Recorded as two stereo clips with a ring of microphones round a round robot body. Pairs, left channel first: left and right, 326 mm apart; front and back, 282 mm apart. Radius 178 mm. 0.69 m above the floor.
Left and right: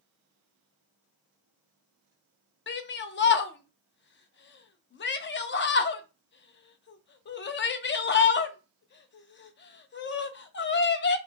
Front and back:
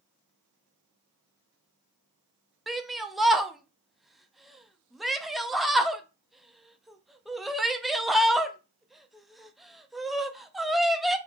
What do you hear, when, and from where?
2.7 s a shout: 90° left, 0.5 m